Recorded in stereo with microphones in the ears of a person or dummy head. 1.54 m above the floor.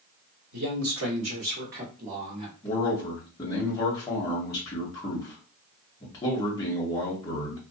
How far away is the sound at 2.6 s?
About 0.8 m.